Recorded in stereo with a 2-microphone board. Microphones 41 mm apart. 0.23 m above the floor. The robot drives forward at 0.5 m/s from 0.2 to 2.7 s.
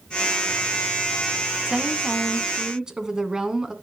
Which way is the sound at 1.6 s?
20° right (ahead or behind).